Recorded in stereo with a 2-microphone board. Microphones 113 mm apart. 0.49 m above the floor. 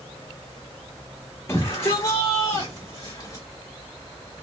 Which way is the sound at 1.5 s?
25° left (ahead or behind).